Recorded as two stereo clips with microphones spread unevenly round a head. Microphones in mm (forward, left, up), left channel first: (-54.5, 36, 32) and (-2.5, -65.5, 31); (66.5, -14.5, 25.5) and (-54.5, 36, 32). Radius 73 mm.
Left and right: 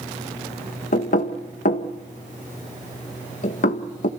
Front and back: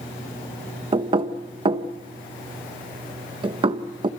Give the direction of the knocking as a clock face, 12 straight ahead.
9 o'clock.